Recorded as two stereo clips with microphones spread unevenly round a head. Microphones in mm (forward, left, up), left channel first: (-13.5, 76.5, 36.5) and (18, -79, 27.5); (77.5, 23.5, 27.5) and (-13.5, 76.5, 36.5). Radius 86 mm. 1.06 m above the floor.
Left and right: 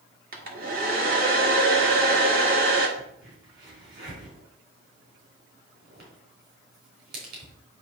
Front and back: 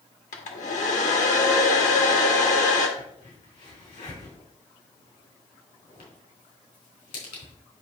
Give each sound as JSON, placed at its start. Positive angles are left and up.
{"t": 0.3, "sound": "a hair dryer", "azimuth_deg": -40, "distance_m": 1.6}
{"t": 3.0, "sound": "a crack", "azimuth_deg": -45, "distance_m": 4.5}